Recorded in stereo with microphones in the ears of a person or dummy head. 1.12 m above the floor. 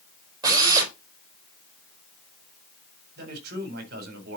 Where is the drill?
25° right (ahead or behind), 5 m.